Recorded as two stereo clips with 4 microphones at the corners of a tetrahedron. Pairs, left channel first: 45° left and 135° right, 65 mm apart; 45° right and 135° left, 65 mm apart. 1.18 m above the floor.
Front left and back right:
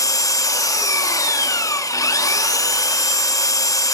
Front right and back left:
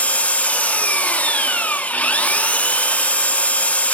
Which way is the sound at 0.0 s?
25° left.